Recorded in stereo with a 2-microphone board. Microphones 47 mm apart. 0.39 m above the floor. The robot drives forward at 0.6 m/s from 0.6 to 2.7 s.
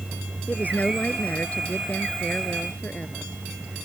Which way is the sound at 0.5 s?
35° left (ahead or behind).